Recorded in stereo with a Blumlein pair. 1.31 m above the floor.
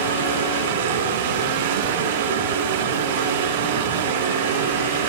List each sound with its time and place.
0.0 s running water: 60° right, 4 m